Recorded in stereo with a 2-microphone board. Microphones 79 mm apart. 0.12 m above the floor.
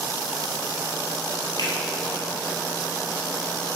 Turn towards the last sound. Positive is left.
turn(degrees=55)  # may be behind; listen again after turning